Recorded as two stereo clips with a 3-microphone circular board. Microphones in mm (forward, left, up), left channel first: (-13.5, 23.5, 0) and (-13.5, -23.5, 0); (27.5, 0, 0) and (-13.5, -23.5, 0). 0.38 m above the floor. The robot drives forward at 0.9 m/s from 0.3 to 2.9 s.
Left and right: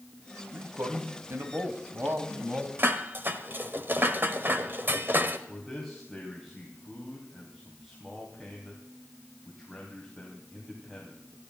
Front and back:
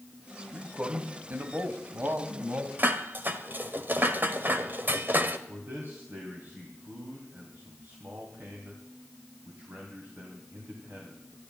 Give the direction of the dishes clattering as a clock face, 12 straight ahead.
4 o'clock.